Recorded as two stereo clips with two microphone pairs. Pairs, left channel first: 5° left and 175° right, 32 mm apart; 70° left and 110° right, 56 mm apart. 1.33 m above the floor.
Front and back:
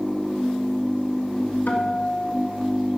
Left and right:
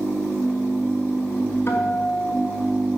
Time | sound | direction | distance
1.7 | a guitar | 20° left | 3 m